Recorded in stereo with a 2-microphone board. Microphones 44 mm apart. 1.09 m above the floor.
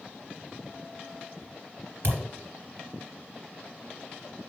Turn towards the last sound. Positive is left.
turn(degrees=-60)  # may be behind; listen again after turning